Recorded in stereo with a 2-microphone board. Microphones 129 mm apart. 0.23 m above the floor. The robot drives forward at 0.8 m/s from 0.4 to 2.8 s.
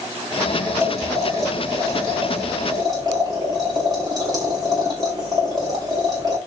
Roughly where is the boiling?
Right.